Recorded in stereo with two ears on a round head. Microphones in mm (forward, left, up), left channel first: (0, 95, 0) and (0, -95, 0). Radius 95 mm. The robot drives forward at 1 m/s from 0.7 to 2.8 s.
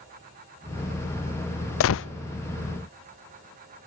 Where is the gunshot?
65° left (ahead or behind), 0.5 m; by 2.1 s 55° left (ahead or behind), 0.6 m.